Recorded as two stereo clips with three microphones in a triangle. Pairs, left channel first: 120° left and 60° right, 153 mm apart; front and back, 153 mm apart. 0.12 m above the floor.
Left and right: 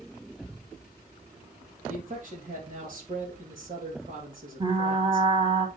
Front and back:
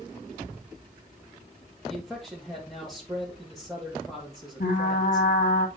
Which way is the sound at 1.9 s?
90° right.